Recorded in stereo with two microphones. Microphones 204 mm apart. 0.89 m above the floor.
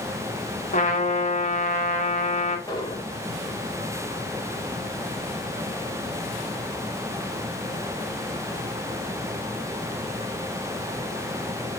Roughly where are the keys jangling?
I don't hear keys jangling.